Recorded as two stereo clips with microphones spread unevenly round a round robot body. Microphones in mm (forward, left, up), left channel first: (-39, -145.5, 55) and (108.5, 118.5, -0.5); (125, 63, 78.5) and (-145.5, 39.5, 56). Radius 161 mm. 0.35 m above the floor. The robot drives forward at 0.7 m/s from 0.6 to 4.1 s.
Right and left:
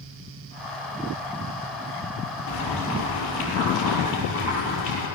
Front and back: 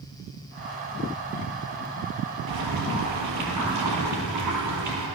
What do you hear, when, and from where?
2.5 s boiling: 165° right, 8 m; by 5.1 s 170° right, 9 m